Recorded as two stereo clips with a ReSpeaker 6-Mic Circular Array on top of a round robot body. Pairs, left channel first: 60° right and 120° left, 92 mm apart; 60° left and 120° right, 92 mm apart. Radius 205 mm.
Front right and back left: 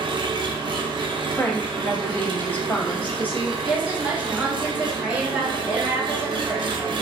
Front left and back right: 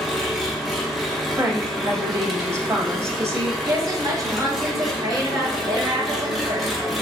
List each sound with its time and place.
0.0 s an engine running: 150° left, 0.7 m
1.4 s a woman speaking: 110° right, 1.1 m
3.6 s a woman speaking: 170° right, 1.2 m